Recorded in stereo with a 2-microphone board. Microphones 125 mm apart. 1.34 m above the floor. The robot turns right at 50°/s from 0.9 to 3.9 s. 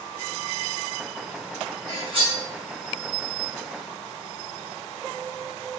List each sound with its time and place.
1.9 s cutlery clinking: 30° right (ahead or behind), 1.6 m; by 2.4 s 55° right (ahead or behind), 1.6 m